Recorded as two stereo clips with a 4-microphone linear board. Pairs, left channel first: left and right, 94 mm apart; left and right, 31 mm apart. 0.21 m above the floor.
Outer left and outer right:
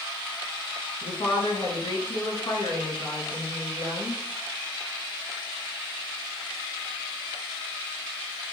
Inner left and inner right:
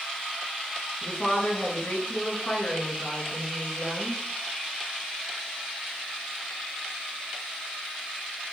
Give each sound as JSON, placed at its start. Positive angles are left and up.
{"t": 1.0, "sound": "a woman speaking", "side_deg": 55, "distance_m": 3.5}